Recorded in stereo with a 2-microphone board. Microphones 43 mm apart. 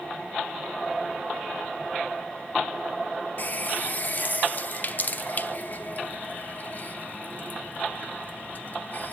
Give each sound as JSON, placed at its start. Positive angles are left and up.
{"t": 3.4, "sound": "a running tap", "side_deg": 40, "distance_m": 0.7}